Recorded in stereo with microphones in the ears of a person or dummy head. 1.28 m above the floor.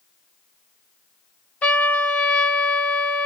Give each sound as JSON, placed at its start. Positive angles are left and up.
{"t": 1.6, "sound": "a trumpet", "side_deg": 10, "distance_m": 0.8}